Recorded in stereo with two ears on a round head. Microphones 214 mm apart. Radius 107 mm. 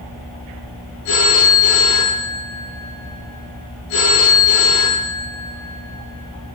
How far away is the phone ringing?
About 9.5 m.